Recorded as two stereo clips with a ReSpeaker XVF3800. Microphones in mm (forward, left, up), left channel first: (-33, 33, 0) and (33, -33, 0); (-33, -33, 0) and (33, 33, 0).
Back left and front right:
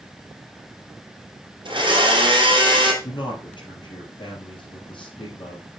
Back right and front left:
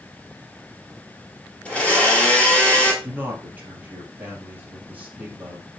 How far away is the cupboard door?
I don't hear a cupboard door.